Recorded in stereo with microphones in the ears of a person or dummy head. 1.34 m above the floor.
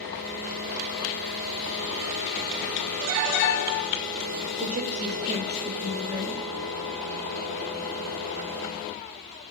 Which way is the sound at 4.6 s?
45° right (ahead or behind).